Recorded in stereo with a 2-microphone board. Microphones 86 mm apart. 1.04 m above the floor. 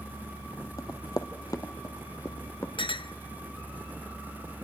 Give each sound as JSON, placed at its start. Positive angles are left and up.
{"t": 0.8, "sound": "running footsteps", "side_deg": 40, "distance_m": 1.4}
{"t": 2.8, "sound": "a clink", "side_deg": 80, "distance_m": 0.7}